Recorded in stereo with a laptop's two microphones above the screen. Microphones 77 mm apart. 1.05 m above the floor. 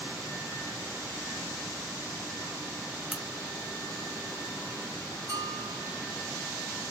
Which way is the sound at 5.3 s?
45° right (ahead or behind).